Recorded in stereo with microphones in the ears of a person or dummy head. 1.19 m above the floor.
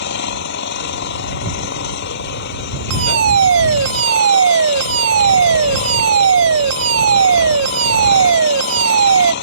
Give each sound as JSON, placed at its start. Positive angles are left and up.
{"t": 0.0, "sound": "an engine running", "side_deg": 65}
{"t": 2.9, "sound": "a fire alarm", "side_deg": -85}